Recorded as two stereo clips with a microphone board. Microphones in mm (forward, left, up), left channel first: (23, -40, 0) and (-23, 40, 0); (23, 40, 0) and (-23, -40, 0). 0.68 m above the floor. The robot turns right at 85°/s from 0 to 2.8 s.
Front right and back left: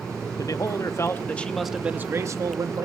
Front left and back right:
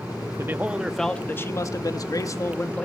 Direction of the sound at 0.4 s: 75° right.